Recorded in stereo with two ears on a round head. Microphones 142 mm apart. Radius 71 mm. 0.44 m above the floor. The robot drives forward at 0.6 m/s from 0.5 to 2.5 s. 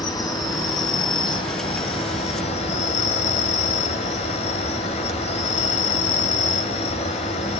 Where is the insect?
25° left (ahead or behind), 3 m; by 7.6 s 40° left (ahead or behind), 1.9 m.